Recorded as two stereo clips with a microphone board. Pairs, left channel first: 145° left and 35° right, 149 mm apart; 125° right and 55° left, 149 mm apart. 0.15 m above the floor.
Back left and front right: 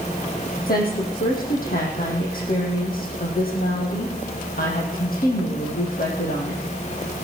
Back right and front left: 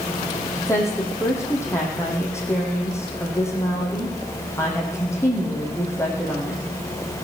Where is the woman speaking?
165° left, 4.5 m.